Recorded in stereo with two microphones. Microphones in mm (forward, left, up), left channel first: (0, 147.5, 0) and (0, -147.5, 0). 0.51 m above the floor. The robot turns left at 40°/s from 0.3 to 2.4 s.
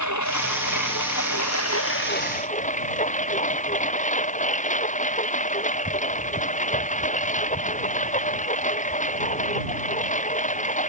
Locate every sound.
0.0 s a lawn mower: 110° left; by 10.9 s 25° left